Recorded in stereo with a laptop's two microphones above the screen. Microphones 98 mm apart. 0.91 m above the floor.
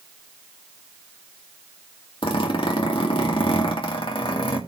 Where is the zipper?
65° left (ahead or behind), 2.5 m.